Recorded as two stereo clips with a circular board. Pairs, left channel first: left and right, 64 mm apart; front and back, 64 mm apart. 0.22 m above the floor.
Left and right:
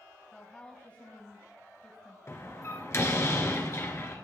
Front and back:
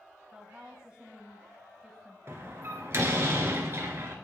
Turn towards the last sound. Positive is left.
turn(degrees=135)